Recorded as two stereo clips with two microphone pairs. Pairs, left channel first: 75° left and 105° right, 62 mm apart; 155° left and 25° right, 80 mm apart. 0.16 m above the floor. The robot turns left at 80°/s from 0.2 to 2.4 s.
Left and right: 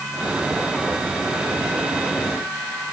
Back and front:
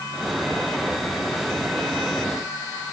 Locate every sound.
Only background noise.